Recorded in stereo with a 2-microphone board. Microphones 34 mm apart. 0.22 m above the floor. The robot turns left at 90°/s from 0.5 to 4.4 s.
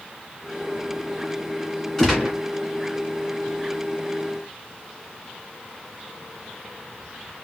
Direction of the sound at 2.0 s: 15° left.